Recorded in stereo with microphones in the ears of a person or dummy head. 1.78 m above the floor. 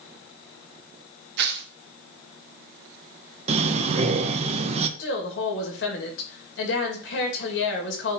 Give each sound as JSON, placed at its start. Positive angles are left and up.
{"t": 1.4, "sound": "tearing paper", "side_deg": -60, "distance_m": 0.7}
{"t": 3.5, "sound": "breathing", "side_deg": -40, "distance_m": 0.8}
{"t": 5.0, "sound": "a woman speaking", "side_deg": 70, "distance_m": 2.0}